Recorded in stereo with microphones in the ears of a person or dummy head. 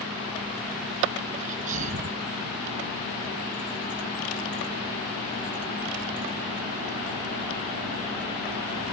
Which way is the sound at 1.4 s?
40° right (ahead or behind).